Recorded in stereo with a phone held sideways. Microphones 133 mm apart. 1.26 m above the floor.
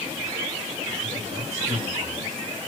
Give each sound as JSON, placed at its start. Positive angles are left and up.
{"t": 1.0, "sound": "a man speaking", "side_deg": -60, "distance_m": 4.5}